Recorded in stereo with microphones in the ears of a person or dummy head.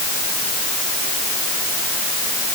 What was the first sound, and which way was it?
Only background noise.